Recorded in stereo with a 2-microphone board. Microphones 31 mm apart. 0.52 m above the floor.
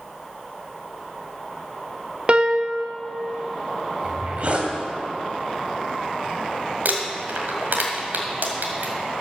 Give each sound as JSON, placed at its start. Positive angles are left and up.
{"t": 2.3, "sound": "a piano", "side_deg": -35, "distance_m": 0.6}
{"t": 4.0, "sound": "a zipper", "side_deg": -40, "distance_m": 1.8}
{"t": 6.8, "sound": "crumpling", "side_deg": -80, "distance_m": 1.8}